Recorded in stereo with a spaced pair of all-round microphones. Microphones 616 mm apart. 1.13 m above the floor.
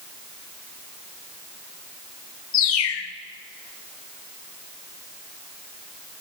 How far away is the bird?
About 0.5 m.